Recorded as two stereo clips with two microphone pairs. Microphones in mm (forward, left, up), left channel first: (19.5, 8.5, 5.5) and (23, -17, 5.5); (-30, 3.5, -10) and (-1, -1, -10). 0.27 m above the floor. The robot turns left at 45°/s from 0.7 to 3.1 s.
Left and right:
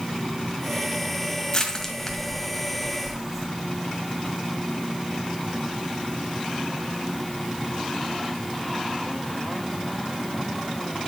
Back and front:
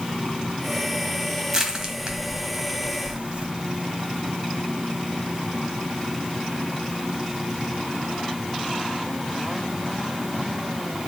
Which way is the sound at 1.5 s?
50° left.